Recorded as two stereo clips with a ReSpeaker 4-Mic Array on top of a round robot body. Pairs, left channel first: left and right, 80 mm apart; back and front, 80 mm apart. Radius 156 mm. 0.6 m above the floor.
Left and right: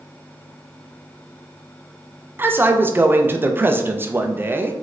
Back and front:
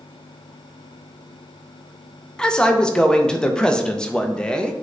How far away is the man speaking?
About 0.6 m.